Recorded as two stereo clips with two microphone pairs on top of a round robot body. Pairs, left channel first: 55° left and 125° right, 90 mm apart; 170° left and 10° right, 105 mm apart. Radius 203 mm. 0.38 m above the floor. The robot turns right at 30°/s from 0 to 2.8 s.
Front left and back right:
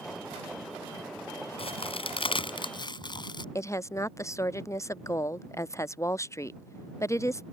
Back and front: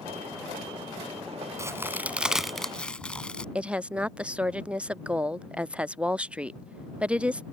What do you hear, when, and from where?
1.6 s a crack: 55° left; by 3.5 s 90° left
3.5 s a woman speaking: 50° left